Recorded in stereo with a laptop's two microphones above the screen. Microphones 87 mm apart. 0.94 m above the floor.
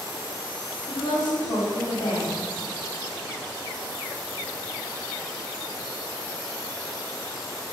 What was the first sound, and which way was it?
A woman speaking, 75° left (ahead or behind).